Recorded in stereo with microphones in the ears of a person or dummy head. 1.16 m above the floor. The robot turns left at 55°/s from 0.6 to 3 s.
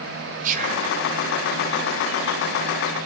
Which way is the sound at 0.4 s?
50° right (ahead or behind).